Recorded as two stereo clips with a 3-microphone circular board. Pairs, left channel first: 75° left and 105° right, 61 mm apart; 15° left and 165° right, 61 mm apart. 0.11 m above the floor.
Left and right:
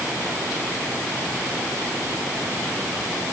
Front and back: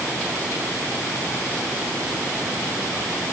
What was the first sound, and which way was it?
Only background noise.